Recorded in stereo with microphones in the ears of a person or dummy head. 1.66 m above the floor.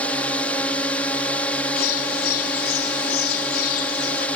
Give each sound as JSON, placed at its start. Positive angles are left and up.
{"t": 0.0, "sound": "a drone", "side_deg": 5}
{"t": 1.8, "sound": "a bird", "side_deg": 55}